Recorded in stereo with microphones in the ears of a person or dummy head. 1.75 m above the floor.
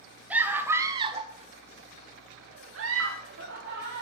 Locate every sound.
0.3 s a scream: 5° right (ahead or behind), 1.9 m; by 4.0 s 65° right (ahead or behind), 2 m